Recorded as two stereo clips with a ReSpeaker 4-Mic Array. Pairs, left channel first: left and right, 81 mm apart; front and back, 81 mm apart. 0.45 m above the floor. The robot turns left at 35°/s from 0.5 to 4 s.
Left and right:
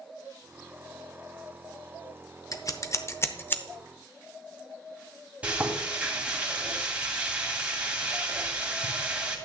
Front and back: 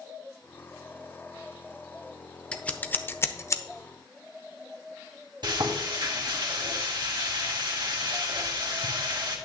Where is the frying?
160° right, 2 m.